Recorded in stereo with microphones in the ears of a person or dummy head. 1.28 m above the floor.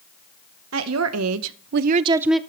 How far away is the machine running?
No machine running in this recording.